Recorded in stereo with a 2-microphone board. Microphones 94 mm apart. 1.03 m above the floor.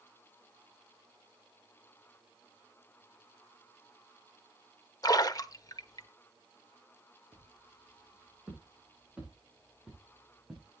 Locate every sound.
5.0 s a splash: 45° left (ahead or behind), 1.0 m
7.3 s footsteps: 20° right (ahead or behind), 7 m; by 10.7 s centre (ahead or behind), 6 m